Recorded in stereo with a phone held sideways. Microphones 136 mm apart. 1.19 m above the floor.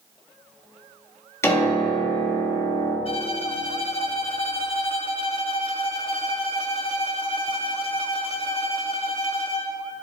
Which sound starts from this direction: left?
A violin, at 3.0 s.